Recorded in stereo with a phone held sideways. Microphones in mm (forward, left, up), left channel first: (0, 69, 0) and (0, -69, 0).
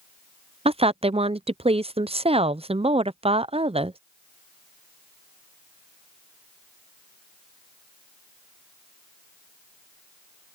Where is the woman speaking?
45° right (ahead or behind).